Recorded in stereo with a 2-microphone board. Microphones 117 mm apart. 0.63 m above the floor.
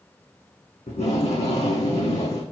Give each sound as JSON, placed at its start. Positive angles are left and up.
{"t": 0.9, "sound": "tape being pulled", "side_deg": 65, "distance_m": 6.5}